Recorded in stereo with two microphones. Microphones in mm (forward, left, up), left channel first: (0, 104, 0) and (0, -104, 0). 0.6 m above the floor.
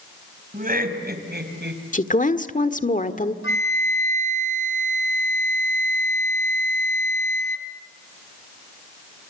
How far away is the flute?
About 2 m.